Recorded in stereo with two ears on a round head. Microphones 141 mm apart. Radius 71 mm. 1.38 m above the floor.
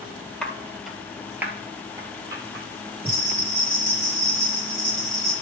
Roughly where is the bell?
Centre.